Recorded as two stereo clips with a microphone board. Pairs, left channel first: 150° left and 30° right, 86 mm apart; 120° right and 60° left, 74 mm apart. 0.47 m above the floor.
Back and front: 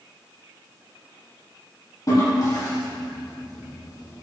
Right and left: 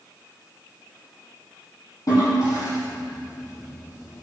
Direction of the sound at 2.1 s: 160° right.